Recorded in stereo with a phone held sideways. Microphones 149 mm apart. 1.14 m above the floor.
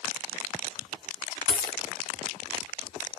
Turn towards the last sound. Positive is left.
turn(degrees=-35)  # may be behind; listen again after turning